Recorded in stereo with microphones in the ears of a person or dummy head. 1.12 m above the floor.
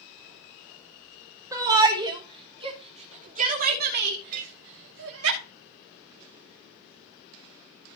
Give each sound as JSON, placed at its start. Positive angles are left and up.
{"t": 1.5, "sound": "a shout", "side_deg": -15, "distance_m": 3.5}
{"t": 4.3, "sound": "a clink", "side_deg": -50, "distance_m": 2.5}